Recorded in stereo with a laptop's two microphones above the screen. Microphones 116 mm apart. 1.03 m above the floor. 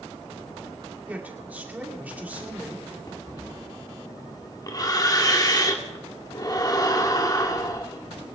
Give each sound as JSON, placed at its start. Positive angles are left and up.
{"t": 1.1, "sound": "a man speaking", "side_deg": -15, "distance_m": 2.5}
{"t": 3.1, "sound": "breathing", "side_deg": 35, "distance_m": 2.5}